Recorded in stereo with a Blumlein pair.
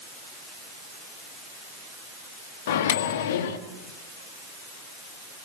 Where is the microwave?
55° left, 1.6 m.